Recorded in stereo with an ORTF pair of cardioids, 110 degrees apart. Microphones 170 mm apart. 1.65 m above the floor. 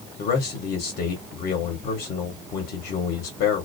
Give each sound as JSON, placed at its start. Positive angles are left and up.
{"t": 0.2, "sound": "a man speaking", "azimuth_deg": 70, "distance_m": 1.1}